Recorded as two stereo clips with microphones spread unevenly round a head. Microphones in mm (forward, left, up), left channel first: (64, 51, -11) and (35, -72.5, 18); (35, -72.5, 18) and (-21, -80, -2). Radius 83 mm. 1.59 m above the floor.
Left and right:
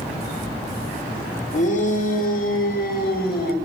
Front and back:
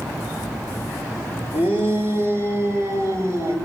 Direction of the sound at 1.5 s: 50° left.